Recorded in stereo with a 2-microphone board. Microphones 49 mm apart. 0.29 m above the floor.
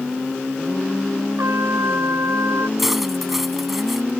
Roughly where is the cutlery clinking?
Centre.